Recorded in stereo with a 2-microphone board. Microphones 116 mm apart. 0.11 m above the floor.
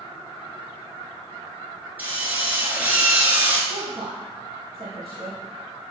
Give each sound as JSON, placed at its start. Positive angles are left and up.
{"t": 2.0, "sound": "a drill", "side_deg": -15, "distance_m": 1.8}
{"t": 3.7, "sound": "a woman speaking", "side_deg": -45, "distance_m": 3.0}